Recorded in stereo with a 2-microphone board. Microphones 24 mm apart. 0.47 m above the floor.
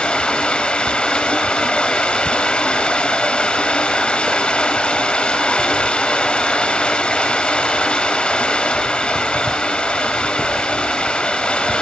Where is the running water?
45° left (ahead or behind), 0.9 m.